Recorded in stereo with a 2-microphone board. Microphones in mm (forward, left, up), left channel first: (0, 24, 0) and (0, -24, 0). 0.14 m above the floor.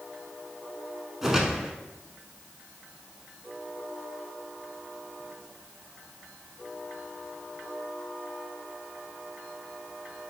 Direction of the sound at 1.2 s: 10° right (ahead or behind).